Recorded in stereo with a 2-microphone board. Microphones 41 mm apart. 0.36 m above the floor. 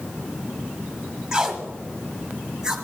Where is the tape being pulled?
15° right (ahead or behind), 1.4 m.